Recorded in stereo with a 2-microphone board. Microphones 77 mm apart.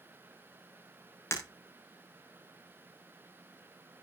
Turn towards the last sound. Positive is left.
turn(degrees=35)  # may be behind; listen again after turning